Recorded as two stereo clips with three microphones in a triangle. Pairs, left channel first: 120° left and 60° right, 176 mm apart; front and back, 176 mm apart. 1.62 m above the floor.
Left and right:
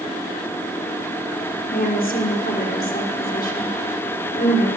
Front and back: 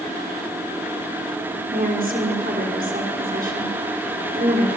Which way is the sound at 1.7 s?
150° left.